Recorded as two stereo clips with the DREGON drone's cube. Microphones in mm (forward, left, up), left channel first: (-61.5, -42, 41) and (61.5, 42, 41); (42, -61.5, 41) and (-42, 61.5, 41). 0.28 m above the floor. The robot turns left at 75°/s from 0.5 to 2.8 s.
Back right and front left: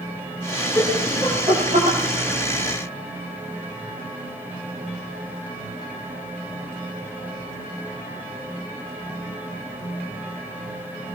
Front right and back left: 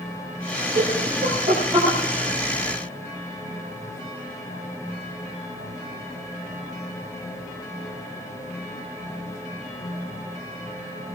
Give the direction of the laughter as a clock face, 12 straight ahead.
7 o'clock.